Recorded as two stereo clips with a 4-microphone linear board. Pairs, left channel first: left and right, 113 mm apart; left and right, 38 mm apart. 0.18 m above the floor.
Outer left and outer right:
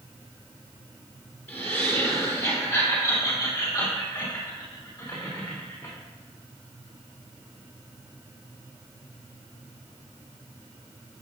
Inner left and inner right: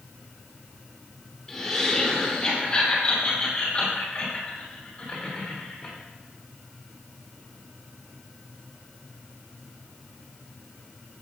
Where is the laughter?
20° left (ahead or behind), 4 m; by 5.9 s 40° left (ahead or behind), 9 m.